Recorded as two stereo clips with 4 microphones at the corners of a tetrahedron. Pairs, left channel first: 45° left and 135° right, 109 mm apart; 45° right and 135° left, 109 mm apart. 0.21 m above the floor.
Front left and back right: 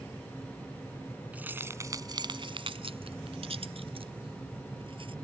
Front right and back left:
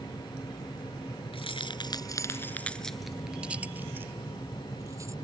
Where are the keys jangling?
60° right; by 5.1 s 165° right.